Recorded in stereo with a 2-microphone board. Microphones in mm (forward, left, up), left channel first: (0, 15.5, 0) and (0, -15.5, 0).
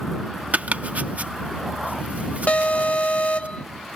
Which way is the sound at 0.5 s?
55° right (ahead or behind).